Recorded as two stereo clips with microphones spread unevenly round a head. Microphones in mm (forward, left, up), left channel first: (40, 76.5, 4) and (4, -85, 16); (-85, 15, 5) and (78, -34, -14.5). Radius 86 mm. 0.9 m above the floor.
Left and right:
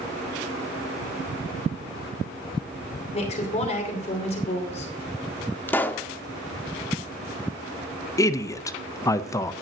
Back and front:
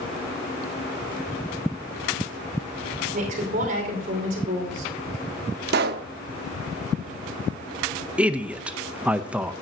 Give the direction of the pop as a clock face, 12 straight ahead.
12 o'clock.